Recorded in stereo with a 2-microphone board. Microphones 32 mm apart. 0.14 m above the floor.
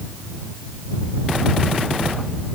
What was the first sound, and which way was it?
Only background noise.